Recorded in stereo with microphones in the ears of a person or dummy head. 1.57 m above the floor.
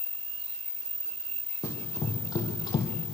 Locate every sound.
1.6 s running footsteps: 20° left (ahead or behind), 4 m; by 2.9 s 30° left (ahead or behind), 3 m